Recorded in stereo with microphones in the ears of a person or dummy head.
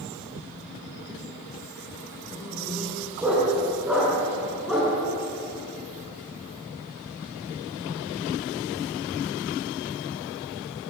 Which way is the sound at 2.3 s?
10° right (ahead or behind).